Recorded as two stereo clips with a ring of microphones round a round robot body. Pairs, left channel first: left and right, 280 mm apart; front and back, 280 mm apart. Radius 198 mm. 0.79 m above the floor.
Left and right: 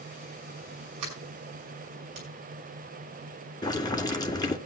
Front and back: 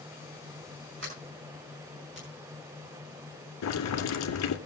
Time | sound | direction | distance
1.0 | a sliding door | 120° right | 6 m
3.6 | boiling | 15° left | 2 m